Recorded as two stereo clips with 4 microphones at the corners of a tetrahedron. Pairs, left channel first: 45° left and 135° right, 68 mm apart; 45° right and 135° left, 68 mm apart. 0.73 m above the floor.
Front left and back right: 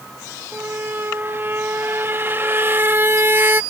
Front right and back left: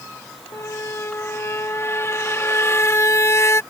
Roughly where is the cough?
I don't hear a cough.